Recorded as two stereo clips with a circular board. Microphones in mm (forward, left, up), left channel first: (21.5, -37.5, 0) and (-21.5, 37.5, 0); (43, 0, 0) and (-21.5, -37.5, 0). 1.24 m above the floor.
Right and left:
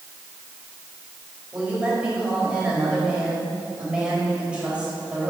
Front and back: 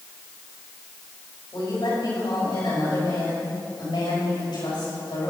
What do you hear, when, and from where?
1.5 s a woman speaking: 45° left, 5 m